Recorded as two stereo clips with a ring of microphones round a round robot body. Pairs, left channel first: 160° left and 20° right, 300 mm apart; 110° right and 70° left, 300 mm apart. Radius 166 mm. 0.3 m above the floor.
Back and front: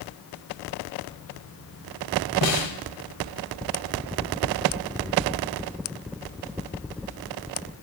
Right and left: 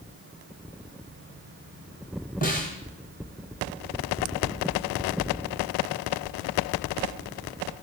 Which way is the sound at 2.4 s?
175° right.